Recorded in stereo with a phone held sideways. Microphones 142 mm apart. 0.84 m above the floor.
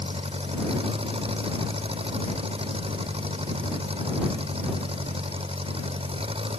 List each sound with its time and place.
0.0 s an engine running: 40° right (ahead or behind)